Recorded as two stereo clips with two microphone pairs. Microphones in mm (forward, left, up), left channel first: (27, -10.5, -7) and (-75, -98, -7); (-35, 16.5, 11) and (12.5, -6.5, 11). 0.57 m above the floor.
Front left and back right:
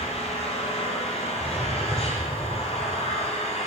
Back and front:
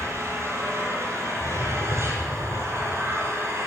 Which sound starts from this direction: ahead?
An engine running, at 0.0 s.